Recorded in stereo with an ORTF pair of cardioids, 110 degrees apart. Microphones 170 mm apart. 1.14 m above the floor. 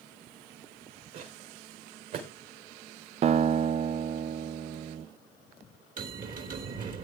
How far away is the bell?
About 3 m.